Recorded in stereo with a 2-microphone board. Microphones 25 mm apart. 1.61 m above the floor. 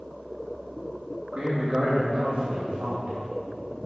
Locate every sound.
1.3 s a man speaking: 50° right (ahead or behind), 3.5 m; by 3.1 s 65° right (ahead or behind), 4 m